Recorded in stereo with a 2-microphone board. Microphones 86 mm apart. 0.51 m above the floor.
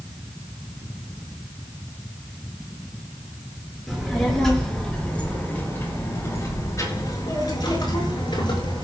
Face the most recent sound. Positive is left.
turn(degrees=70)  # may be behind; listen again after turning